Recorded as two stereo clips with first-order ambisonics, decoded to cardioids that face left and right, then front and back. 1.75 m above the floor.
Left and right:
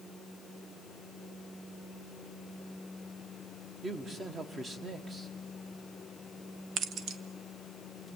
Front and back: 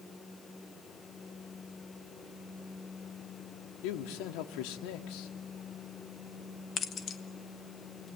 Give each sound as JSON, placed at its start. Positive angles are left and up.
{"t": 3.8, "sound": "a man speaking", "azimuth_deg": -15, "distance_m": 1.6}
{"t": 6.8, "sound": "keys jangling", "azimuth_deg": -50, "distance_m": 0.9}